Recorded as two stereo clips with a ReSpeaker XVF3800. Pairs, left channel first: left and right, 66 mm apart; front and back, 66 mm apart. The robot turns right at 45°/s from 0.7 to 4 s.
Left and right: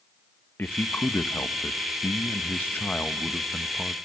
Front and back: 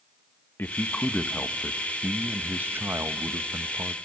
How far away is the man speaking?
About 1.0 m.